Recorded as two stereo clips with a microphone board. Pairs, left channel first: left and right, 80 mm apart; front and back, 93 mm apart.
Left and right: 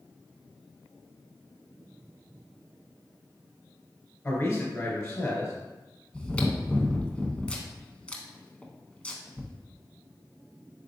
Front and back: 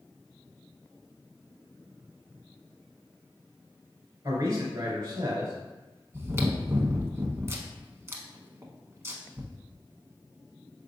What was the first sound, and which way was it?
A man speaking, 150° left.